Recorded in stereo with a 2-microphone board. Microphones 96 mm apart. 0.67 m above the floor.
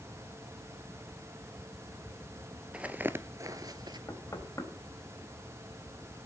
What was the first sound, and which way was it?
Footsteps, 10° right (ahead or behind).